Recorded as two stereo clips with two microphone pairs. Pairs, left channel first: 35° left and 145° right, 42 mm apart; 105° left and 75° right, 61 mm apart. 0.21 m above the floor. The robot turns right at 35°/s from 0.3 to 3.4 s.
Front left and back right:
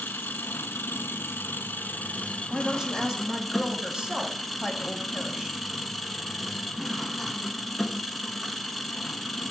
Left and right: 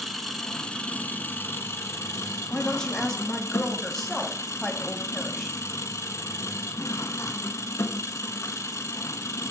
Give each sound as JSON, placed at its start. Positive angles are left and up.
{"t": 0.0, "sound": "an engine running", "azimuth_deg": 20, "distance_m": 0.8}
{"t": 2.5, "sound": "a woman speaking", "azimuth_deg": 160, "distance_m": 1.2}